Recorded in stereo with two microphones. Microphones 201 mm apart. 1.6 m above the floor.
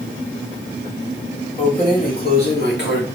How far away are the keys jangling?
About 2 m.